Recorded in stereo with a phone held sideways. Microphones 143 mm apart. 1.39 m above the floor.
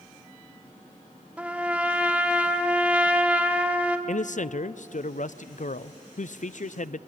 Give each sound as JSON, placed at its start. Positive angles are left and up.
{"t": 1.4, "sound": "a trumpet", "side_deg": -10, "distance_m": 1.7}
{"t": 4.1, "sound": "a man speaking", "side_deg": 60, "distance_m": 0.5}